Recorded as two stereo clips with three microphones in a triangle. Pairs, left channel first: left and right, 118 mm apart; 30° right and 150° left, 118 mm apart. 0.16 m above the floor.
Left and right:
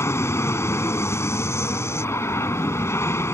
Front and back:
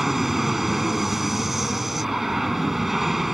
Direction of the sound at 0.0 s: 65° left.